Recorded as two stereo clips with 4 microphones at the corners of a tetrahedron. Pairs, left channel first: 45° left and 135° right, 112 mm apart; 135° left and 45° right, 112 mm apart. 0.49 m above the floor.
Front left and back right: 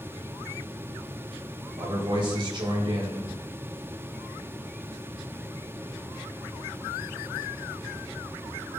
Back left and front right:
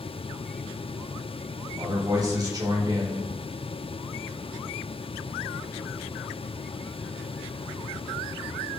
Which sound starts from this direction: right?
A man speaking, at 1.8 s.